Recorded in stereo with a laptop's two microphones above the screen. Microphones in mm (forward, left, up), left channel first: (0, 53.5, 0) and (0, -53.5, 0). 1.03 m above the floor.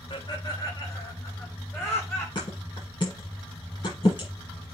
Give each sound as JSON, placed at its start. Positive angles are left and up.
{"t": 0.1, "sound": "laughter", "side_deg": 45, "distance_m": 2.5}
{"t": 2.4, "sound": "a thud", "side_deg": 45, "distance_m": 5.5}